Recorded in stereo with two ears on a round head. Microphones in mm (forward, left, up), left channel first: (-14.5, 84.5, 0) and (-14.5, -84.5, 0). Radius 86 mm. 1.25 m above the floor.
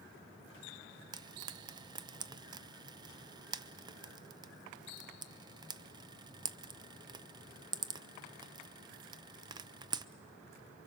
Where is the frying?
20° right (ahead or behind), 0.5 m.